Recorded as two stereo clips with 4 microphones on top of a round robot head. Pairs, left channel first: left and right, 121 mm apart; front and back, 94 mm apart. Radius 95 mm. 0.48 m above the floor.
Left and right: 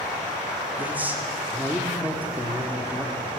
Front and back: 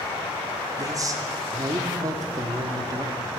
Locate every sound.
0.8 s a man speaking: 160° right, 0.9 m